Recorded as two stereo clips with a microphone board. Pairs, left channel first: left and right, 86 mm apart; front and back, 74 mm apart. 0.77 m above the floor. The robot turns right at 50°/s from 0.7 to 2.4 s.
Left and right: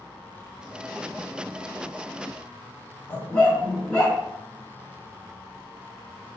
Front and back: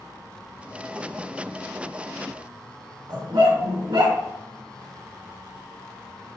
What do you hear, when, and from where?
3.1 s a dog barking: 165° left, 2.0 m